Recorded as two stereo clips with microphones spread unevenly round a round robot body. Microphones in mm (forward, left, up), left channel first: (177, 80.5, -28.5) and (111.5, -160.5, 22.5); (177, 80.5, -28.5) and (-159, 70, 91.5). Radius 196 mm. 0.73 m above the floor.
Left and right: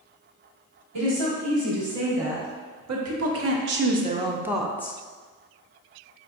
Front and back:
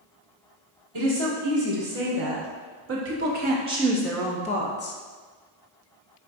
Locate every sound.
0.9 s a woman speaking: 130° right, 1.6 m; by 5.0 s 10° left, 0.7 m